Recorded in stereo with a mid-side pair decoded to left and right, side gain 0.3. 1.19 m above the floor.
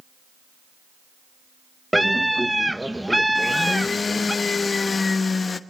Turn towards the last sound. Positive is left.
turn(degrees=50)